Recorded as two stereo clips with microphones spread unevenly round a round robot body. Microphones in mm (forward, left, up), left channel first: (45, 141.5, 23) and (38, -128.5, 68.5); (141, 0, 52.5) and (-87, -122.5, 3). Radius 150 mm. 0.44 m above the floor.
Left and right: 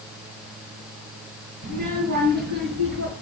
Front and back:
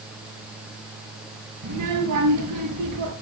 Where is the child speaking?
150° right, 4.5 m; by 3.1 s 140° right, 5.5 m.